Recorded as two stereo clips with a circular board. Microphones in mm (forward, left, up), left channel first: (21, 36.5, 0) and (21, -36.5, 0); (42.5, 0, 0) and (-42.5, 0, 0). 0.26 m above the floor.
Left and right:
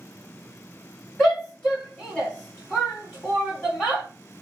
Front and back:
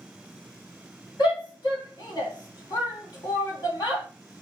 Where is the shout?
Straight ahead, 2.5 m.